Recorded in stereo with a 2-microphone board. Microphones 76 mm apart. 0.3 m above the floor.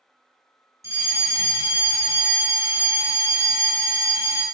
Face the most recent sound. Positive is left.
turn(degrees=-40)  # may be behind; listen again after turning